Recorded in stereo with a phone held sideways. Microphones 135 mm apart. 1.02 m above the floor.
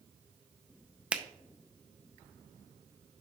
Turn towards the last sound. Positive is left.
turn(degrees=-10)  # may be behind; listen again after turning